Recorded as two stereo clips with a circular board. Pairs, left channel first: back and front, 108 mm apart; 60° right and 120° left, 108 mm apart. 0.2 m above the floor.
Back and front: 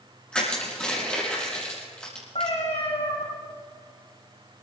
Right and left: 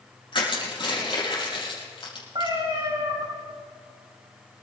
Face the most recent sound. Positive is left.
turn(degrees=165)